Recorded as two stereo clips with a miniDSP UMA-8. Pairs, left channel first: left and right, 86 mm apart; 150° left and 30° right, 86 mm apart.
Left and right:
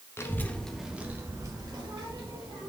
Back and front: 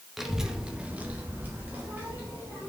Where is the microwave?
No microwave in this recording.